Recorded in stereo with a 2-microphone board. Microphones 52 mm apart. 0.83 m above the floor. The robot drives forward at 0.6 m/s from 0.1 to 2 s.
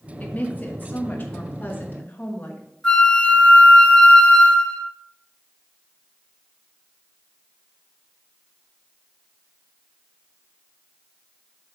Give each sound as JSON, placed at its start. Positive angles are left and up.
{"t": 0.2, "sound": "a woman speaking", "side_deg": 30, "distance_m": 1.4}
{"t": 2.8, "sound": "a flute", "side_deg": 10, "distance_m": 2.0}